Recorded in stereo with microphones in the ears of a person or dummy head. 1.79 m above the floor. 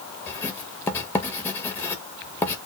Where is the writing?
10° left (ahead or behind), 0.7 m.